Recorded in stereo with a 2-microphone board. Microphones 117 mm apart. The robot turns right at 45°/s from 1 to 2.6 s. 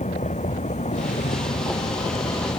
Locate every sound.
0.0 s a vehicle: 80° left; by 2.6 s 35° left (ahead or behind)